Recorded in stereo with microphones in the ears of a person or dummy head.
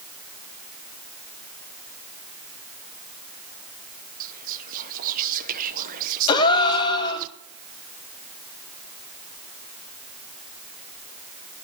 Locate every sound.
4.2 s whispering: 45° right (ahead or behind), 0.9 m
6.3 s a gasp: 30° left (ahead or behind), 1.6 m